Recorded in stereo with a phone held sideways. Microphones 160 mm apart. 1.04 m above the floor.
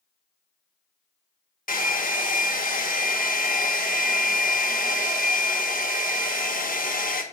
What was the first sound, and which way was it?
A hair dryer, 60° left (ahead or behind).